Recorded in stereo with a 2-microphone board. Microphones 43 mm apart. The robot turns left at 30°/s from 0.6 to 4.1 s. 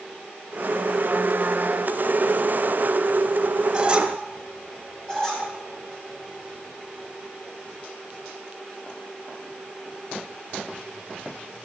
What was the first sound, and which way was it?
A squeak, 25° right (ahead or behind).